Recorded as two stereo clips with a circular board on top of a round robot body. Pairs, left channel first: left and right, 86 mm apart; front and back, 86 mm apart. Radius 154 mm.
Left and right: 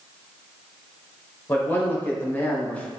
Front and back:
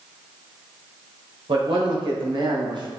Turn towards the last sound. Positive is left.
turn(degrees=165)